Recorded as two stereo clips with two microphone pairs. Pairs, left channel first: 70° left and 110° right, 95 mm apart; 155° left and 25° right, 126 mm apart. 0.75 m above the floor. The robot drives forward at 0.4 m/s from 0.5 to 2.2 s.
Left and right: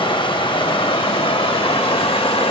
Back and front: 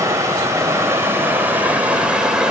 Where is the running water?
45° left, 2 m; by 2.5 s 60° left, 1.6 m.